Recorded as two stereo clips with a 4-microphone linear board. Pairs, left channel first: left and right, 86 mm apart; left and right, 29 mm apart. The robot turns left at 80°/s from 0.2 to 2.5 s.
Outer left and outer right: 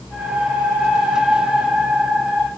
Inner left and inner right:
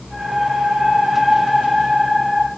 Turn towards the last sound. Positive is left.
No sound to turn to.